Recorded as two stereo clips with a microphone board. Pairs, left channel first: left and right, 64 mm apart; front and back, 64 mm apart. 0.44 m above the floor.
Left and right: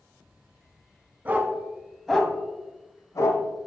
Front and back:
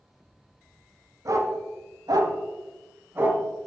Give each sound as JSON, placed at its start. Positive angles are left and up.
{"t": 1.2, "sound": "a dog barking", "azimuth_deg": -150, "distance_m": 1.2}